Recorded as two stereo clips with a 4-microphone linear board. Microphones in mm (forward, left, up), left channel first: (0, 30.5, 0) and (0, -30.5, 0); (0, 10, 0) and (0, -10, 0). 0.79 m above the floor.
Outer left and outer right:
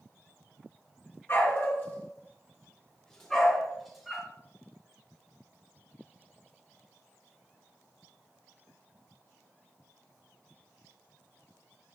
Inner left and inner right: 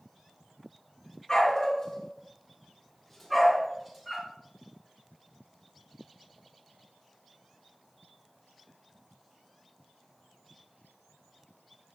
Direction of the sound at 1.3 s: 45° left (ahead or behind).